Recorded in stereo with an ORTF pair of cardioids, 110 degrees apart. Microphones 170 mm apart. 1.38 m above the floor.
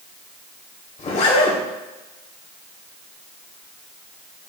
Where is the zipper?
45° left, 2.5 m.